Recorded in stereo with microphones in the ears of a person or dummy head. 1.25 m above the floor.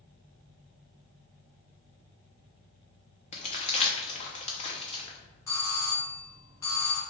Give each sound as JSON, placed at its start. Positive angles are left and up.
{"t": 3.3, "sound": "crumpling", "side_deg": 40, "distance_m": 0.7}
{"t": 5.5, "sound": "a doorbell", "side_deg": 20, "distance_m": 0.8}